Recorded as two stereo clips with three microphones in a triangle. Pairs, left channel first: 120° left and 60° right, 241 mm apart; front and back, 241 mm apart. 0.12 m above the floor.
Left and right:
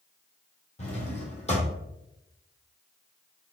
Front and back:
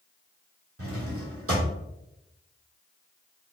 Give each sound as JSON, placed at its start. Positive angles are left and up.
{"t": 0.8, "sound": "a drawer", "azimuth_deg": -175, "distance_m": 1.2}